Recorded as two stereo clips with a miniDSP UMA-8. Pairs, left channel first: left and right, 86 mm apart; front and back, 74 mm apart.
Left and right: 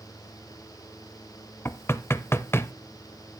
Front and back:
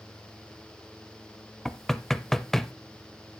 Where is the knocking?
80° left, 0.6 m.